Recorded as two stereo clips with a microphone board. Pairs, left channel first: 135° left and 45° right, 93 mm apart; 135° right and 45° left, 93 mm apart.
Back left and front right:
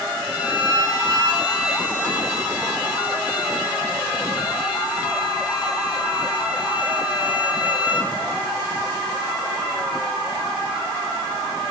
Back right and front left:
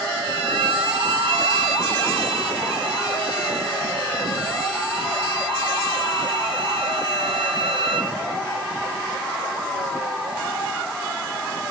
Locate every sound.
0.2 s a violin: 35° left, 5.5 m